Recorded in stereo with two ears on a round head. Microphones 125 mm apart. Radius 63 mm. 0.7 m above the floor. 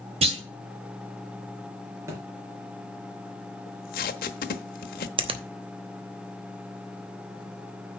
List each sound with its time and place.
0.2 s a clunk: 45° right (ahead or behind), 1.8 m
2.1 s a thud: 20° right (ahead or behind), 3 m
3.7 s tape being pulled: 65° left (ahead or behind), 1.0 m
5.2 s a finger snap: 40° right (ahead or behind), 0.9 m